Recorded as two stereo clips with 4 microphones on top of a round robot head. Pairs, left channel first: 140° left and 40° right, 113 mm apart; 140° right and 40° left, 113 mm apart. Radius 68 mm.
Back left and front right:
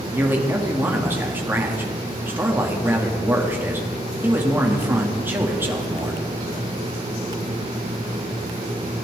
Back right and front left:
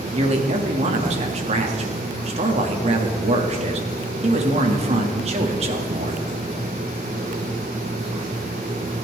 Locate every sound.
0.1 s a man speaking: 30° left, 2 m